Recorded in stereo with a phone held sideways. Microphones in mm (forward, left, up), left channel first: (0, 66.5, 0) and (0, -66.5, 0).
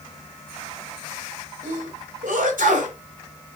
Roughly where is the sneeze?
Right.